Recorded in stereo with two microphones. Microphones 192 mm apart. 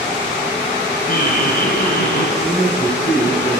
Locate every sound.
1.1 s laughter: 50° left (ahead or behind), 4.5 m; by 2.3 s 55° left (ahead or behind), 4 m
2.4 s a man speaking: 45° left (ahead or behind), 7.5 m